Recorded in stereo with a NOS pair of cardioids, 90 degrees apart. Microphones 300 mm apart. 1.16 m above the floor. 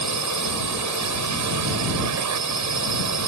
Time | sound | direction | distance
0.0 | a drone | 70° right | ?